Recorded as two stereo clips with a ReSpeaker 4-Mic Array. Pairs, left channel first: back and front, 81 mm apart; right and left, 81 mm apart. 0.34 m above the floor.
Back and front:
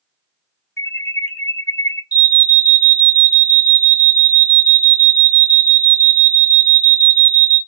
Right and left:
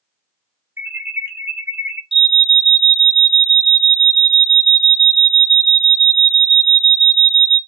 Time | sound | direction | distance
0.8 | an alarm | 140° left | 1.3 m
2.1 | an alarm | 10° left | 1.1 m